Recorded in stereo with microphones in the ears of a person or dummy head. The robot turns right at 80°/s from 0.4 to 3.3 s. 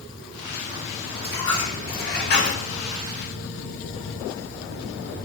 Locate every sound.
1.2 s a dropped coin: 20° left, 1.5 m; by 2.6 s 130° left, 1.5 m